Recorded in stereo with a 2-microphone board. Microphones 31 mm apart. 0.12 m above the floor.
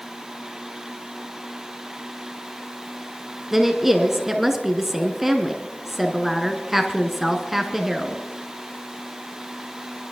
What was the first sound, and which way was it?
A woman speaking, 5° right (ahead or behind).